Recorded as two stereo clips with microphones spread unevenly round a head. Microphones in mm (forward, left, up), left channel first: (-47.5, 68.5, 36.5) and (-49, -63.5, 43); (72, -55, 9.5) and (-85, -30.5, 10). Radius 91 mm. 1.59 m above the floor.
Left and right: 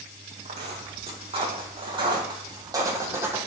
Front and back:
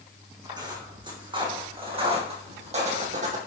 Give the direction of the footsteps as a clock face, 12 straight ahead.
4 o'clock.